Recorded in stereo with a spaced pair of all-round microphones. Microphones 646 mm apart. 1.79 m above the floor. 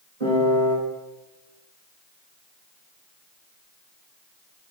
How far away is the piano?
About 1.9 m.